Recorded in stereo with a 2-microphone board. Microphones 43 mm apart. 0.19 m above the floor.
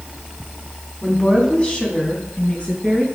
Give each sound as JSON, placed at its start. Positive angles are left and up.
{"t": 1.0, "sound": "a woman speaking", "side_deg": 25, "distance_m": 1.8}